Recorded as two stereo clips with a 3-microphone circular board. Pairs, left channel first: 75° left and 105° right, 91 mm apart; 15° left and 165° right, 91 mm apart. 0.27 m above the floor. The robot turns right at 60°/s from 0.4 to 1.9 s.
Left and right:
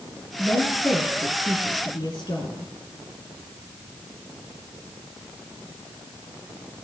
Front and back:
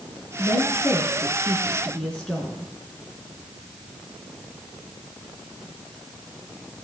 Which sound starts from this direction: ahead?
A woman speaking, at 0.4 s.